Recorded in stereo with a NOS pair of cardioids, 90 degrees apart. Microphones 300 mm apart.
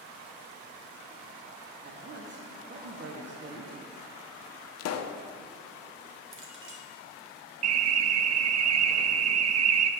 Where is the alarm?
60° right, 0.7 m.